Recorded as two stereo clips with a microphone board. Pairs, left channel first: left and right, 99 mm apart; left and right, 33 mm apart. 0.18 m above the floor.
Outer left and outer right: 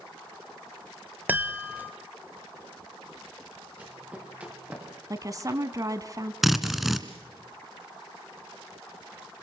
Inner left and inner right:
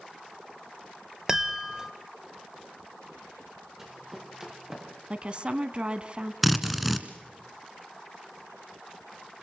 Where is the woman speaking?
35° right (ahead or behind), 1.5 m.